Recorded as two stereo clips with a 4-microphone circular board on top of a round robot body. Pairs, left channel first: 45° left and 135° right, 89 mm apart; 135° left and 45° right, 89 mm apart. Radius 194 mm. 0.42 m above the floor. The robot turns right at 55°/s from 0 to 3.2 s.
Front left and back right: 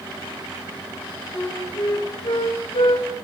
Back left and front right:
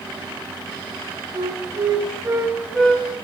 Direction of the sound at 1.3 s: 35° right.